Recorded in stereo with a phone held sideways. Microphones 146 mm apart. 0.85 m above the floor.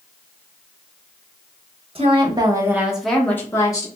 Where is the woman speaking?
40° right (ahead or behind), 0.8 m; by 3.9 s 25° left (ahead or behind), 0.9 m.